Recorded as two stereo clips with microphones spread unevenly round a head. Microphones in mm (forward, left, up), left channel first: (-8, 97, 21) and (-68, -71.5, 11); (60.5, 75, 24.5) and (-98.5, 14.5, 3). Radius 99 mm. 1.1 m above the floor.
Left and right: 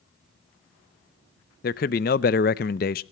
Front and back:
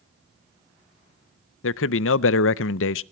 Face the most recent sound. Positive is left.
turn(degrees=20)